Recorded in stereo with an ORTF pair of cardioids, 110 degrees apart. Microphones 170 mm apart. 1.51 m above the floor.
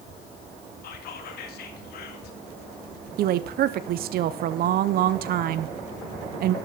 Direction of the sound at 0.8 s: 65° left.